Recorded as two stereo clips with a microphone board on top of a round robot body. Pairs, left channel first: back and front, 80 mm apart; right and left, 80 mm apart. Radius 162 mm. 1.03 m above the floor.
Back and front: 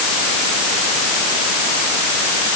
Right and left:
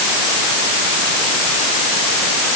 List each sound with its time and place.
Only background noise.